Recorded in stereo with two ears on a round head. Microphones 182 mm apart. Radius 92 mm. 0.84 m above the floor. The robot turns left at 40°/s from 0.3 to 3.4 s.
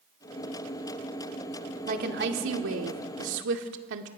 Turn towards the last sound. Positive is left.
turn(degrees=-105)